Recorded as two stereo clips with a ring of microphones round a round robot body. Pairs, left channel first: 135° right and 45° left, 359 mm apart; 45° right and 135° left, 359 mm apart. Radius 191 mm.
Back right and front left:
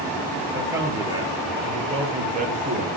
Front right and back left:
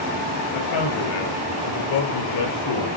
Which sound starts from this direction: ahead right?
A man speaking, at 0.5 s.